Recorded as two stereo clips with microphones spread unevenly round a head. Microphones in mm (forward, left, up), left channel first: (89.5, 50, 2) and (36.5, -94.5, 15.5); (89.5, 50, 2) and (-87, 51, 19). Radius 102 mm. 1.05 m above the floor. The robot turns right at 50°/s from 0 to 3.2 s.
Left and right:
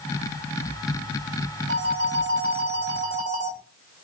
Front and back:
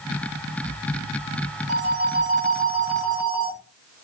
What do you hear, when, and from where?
1.7 s a phone ringing: 150° right, 1.2 m; by 3.6 s 75° right, 1.2 m